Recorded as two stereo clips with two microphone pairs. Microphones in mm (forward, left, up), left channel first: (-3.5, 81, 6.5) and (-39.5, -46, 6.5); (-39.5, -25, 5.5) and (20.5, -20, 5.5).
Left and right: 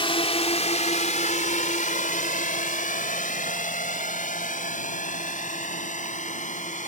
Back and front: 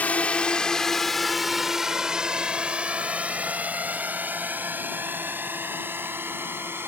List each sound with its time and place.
0.0 s a drone: 120° left; by 6.9 s 55° left